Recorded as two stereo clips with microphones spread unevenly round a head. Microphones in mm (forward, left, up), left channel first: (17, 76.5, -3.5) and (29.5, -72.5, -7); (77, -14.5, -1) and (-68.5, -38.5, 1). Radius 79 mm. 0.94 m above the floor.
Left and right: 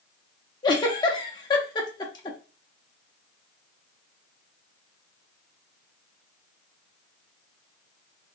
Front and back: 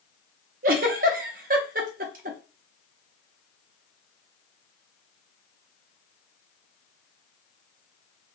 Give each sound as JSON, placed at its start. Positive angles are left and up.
{"t": 0.6, "sound": "a giggle", "azimuth_deg": 160, "distance_m": 0.6}